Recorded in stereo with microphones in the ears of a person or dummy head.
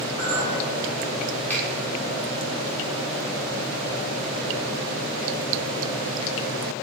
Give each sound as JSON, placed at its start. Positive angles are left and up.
{"t": 0.2, "sound": "a clink", "side_deg": 25, "distance_m": 2.0}
{"t": 1.5, "sound": "a finger snap", "side_deg": 10, "distance_m": 1.7}